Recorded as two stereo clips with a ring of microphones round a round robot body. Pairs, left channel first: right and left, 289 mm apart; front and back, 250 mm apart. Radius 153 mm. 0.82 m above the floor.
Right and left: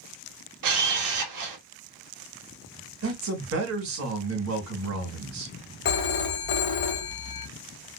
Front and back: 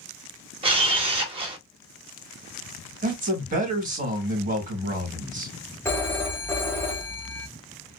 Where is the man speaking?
125° left, 1.5 m.